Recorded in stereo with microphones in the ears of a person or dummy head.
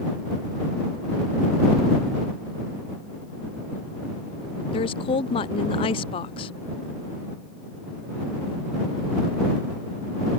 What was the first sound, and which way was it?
A woman speaking, 30° left (ahead or behind).